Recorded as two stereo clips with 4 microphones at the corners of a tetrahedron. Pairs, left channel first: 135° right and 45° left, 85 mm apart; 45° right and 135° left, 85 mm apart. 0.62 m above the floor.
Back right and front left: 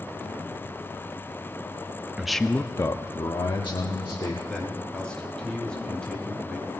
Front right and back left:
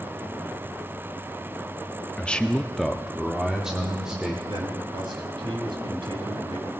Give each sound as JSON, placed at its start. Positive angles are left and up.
{"t": 2.2, "sound": "a man speaking", "azimuth_deg": -15, "distance_m": 0.5}
{"t": 4.5, "sound": "a man speaking", "azimuth_deg": 145, "distance_m": 3.5}